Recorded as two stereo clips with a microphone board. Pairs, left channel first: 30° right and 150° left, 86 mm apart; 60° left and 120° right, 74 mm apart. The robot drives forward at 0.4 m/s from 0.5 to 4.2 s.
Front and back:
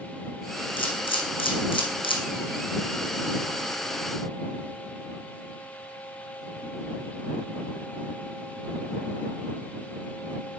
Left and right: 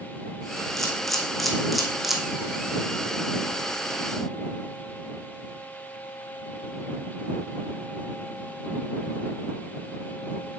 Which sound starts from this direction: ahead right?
A camera shutter, at 0.8 s.